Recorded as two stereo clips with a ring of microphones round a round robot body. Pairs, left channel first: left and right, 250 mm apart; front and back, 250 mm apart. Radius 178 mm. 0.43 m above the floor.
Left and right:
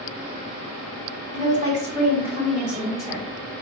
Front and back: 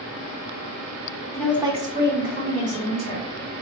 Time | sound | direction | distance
1.3 | a woman speaking | 70° right | 1.0 m